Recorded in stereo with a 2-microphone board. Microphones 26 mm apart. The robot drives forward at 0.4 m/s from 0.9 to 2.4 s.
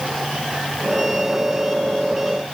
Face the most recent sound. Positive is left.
No sound to turn to.